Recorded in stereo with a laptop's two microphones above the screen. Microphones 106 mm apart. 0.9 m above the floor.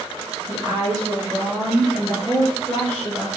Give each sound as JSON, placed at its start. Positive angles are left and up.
{"t": 0.5, "sound": "a woman speaking", "side_deg": -40, "distance_m": 1.1}